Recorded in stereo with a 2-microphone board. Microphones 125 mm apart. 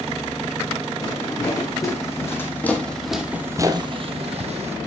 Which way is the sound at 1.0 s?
30° left (ahead or behind).